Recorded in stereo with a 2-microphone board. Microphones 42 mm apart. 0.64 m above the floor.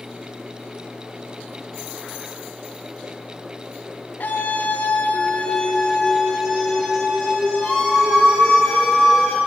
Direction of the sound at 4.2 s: 50° left (ahead or behind).